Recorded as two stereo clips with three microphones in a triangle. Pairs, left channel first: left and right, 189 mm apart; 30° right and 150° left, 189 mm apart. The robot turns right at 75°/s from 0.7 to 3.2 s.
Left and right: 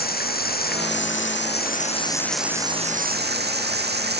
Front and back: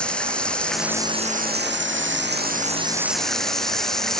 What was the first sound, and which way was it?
Running water, 55° left.